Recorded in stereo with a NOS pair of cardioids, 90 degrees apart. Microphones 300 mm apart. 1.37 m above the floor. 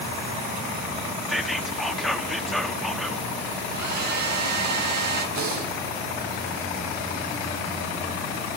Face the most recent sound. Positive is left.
turn(degrees=-65)